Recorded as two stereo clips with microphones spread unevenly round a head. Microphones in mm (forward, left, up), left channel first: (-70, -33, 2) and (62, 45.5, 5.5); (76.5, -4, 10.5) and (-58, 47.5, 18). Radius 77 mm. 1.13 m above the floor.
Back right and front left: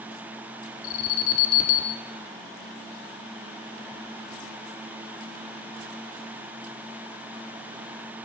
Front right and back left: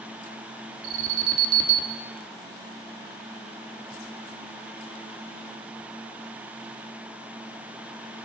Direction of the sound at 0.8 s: 175° left.